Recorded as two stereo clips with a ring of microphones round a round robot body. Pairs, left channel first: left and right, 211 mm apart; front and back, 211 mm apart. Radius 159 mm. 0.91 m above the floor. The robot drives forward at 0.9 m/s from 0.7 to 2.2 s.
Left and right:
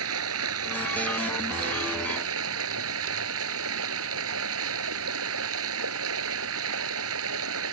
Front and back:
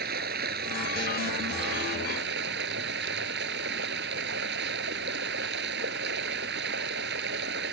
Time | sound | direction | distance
0.0 | running water | 120° right | ?